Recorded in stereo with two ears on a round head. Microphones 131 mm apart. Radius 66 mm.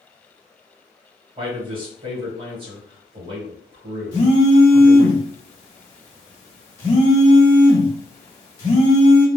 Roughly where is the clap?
No clap in this recording.